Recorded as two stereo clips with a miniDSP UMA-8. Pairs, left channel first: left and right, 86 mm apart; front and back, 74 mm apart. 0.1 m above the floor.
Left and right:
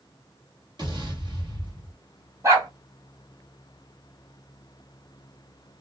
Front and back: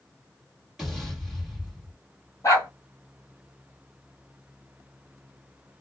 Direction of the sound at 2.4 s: 45° right.